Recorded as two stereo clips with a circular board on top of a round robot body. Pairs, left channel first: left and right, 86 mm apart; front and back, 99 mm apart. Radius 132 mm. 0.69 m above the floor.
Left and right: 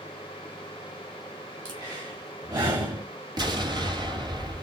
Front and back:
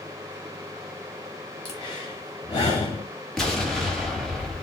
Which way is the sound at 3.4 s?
85° right.